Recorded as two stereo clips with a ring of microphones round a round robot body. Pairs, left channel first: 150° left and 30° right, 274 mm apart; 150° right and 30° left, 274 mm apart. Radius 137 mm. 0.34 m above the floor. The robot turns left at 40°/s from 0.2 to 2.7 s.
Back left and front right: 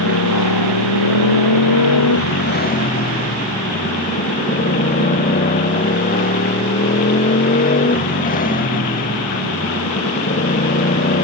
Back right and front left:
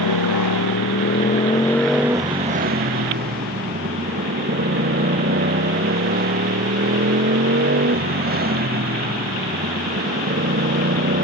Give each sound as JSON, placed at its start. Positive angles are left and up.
{"t": 0.0, "sound": "a motorcycle", "azimuth_deg": -170}